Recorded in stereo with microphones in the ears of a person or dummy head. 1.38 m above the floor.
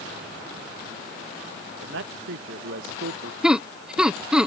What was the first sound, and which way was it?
A man speaking, 70° right (ahead or behind).